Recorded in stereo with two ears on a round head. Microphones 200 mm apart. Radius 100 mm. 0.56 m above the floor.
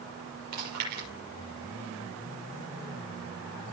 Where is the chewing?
90° right, 7 m.